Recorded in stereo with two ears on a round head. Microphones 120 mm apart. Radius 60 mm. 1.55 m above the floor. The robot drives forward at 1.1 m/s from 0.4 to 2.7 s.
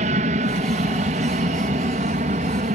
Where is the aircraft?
60° right (ahead or behind).